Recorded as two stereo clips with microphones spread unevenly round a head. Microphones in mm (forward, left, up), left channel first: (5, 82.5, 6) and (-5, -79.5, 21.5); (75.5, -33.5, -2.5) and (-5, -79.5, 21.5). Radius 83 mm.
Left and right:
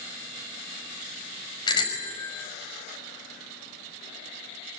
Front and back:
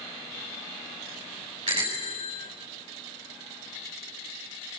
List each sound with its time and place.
1.7 s a bicycle bell: 150° left, 6 m